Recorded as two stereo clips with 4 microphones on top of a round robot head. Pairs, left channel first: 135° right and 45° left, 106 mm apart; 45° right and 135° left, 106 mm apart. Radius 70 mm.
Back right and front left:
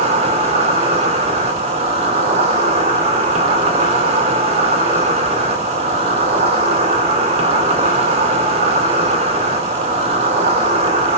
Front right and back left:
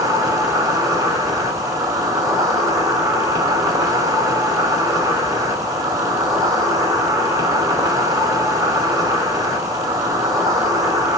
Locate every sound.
0.0 s an insect: 75° left, 2.5 m